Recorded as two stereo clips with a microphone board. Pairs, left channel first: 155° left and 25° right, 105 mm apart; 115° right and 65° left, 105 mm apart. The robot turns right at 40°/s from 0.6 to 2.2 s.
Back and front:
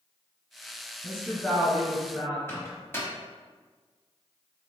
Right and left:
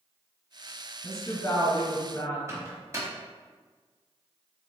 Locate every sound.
1.0 s a woman speaking: 120° right, 1.5 m; by 2.4 s 75° right, 1.5 m
2.5 s a microwave: 105° left, 1.0 m